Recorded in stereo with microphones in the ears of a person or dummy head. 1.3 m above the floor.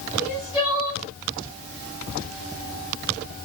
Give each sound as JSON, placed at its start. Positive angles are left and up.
{"t": 0.2, "sound": "crying", "side_deg": -5, "distance_m": 1.2}